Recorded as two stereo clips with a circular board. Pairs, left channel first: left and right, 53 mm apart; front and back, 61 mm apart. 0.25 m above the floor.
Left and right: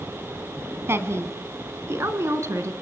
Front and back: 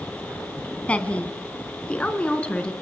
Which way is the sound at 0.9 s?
65° right.